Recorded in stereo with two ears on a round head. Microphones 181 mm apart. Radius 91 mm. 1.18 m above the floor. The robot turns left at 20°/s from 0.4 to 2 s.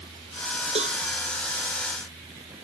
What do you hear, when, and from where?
0.8 s a cowbell: 30° right (ahead or behind); by 1.0 s 35° right (ahead or behind)